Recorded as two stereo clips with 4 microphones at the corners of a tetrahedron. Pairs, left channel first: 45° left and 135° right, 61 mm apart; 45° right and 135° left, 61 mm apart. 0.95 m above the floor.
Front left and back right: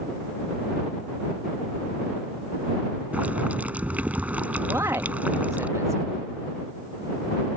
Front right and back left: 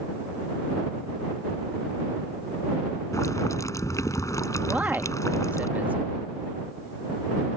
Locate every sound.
3.1 s boiling: 70° right
4.7 s a man speaking: 165° right